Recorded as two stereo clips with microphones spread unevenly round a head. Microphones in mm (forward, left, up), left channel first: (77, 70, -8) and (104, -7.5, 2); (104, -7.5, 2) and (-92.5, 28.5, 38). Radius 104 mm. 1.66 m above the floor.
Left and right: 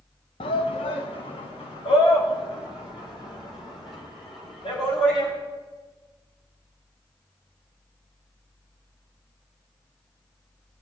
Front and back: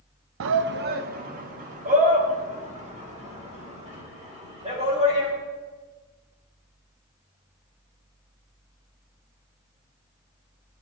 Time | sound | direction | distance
0.4 | a shout | 145° left | 0.5 m